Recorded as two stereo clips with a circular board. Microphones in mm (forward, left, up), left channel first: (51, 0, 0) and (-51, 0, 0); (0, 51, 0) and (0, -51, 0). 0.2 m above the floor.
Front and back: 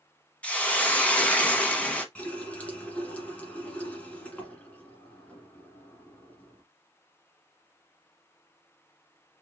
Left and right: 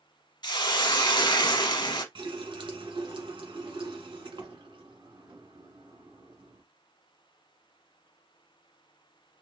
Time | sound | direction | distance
0.4 | a hiss | 70° left | 0.9 m
2.1 | a running tap | 75° right | 1.6 m